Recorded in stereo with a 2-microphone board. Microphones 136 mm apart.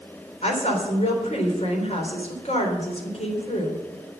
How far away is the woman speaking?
About 3.5 m.